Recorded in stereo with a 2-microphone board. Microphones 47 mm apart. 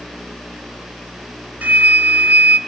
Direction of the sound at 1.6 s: 40° right (ahead or behind).